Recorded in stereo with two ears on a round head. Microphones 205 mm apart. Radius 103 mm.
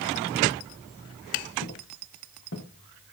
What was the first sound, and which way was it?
Footsteps, 55° left (ahead or behind).